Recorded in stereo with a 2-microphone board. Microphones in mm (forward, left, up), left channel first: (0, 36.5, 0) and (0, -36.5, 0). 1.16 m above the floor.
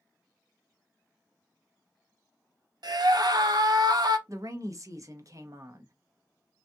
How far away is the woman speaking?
About 0.8 m.